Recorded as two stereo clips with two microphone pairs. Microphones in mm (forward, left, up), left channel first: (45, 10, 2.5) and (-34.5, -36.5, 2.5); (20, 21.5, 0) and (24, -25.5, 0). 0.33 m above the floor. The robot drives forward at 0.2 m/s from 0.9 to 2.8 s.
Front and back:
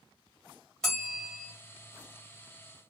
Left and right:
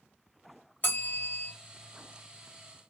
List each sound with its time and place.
0.8 s a bell: 110° left, 1.8 m; by 1.5 s 115° left, 1.8 m